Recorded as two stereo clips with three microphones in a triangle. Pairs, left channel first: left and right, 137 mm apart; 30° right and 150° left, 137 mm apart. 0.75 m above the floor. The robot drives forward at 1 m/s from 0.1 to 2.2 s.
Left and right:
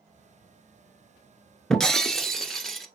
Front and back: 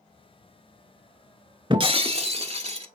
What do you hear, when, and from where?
1.7 s breaking glass: 175° left, 0.8 m